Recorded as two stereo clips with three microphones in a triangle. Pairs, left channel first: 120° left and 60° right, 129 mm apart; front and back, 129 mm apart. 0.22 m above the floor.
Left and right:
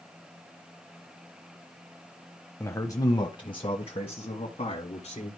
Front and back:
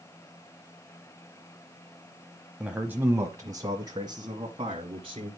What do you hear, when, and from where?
2.6 s a man speaking: 105° left, 0.9 m; by 5.3 s 140° left, 2 m